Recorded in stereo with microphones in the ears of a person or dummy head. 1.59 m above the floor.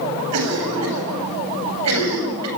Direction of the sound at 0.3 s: 80° right.